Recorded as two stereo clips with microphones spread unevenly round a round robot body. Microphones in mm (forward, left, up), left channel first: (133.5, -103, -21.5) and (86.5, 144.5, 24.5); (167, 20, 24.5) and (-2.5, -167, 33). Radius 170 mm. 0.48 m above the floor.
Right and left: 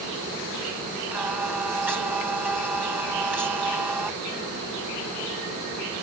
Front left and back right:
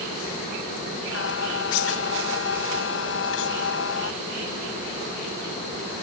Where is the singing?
15° left.